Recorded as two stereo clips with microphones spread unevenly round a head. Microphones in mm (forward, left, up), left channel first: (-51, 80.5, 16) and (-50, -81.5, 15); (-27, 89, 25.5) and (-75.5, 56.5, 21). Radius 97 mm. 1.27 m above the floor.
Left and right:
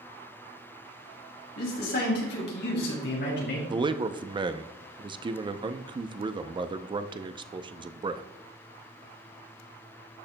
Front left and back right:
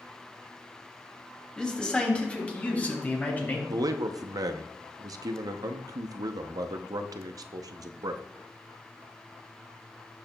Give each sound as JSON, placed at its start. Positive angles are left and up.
{"t": 1.6, "sound": "a man speaking", "azimuth_deg": 110, "distance_m": 2.5}
{"t": 3.7, "sound": "a man speaking", "azimuth_deg": -150, "distance_m": 0.6}